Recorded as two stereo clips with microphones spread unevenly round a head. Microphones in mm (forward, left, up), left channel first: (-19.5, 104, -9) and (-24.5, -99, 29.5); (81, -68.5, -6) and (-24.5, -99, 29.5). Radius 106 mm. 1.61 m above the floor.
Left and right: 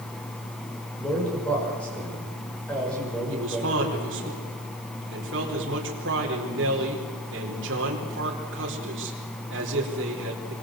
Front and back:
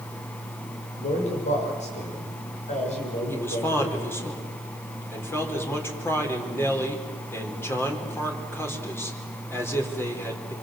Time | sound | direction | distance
1.0 | a man speaking | 5° left | 7.5 m
3.3 | a man speaking | 55° right | 4.5 m